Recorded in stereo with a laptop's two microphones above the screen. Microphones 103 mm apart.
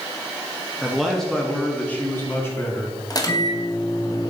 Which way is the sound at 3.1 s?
35° left (ahead or behind).